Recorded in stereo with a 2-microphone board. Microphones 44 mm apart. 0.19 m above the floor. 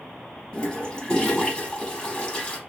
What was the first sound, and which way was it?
A toilet flushing, 20° left (ahead or behind).